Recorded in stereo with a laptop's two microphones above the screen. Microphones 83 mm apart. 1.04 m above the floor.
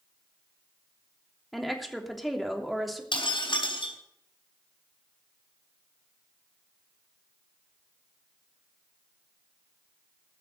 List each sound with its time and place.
1.5 s a woman speaking: centre (ahead or behind), 3 m
3.1 s breaking glass: 80° left, 4 m